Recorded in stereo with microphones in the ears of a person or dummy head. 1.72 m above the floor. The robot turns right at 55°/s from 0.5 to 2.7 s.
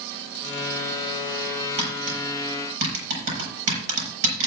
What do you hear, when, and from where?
1.8 s tapping: 30° right (ahead or behind), 6 m; by 4.5 s 75° right (ahead or behind), 6 m